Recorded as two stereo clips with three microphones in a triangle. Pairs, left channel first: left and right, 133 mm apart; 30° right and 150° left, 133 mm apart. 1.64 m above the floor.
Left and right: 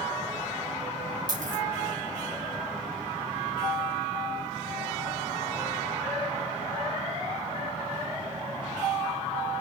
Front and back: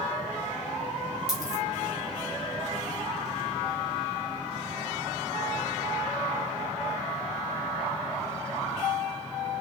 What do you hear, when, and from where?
1.3 s a dropped coin: 30° left, 5 m